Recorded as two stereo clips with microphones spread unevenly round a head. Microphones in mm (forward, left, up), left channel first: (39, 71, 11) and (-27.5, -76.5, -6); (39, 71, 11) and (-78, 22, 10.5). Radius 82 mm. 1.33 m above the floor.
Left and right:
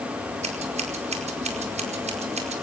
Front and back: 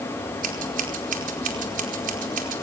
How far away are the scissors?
About 4.5 m.